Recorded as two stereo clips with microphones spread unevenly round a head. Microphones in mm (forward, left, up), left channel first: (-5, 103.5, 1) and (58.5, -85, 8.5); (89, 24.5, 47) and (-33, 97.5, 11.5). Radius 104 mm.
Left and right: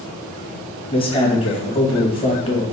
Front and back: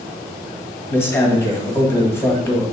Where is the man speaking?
45° left, 1.5 m.